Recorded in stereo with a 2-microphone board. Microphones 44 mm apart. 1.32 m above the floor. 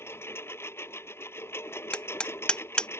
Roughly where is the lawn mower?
Left.